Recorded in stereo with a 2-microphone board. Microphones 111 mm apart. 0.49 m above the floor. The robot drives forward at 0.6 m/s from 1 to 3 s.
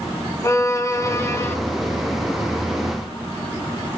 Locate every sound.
0.4 s a violin: 25° left (ahead or behind), 1.5 m; by 1.6 s 20° left (ahead or behind), 1.8 m